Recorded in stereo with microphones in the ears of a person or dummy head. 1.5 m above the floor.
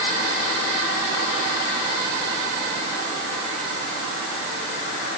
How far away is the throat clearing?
I don't hear throat clearing.